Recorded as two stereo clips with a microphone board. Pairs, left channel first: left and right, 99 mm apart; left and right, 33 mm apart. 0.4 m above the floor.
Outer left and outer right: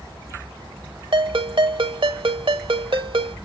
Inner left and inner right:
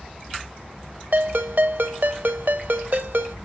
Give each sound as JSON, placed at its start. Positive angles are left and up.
{"t": 1.1, "sound": "a ringtone", "side_deg": -60, "distance_m": 0.8}